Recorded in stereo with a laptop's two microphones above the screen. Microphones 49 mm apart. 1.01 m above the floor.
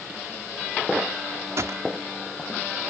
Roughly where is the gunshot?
Right.